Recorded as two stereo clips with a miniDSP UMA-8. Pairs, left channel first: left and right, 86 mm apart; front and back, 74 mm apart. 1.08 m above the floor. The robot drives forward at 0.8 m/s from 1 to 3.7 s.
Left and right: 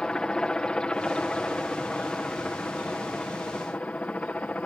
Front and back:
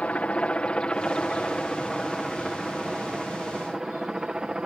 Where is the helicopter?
30° left; by 4.7 s 125° left.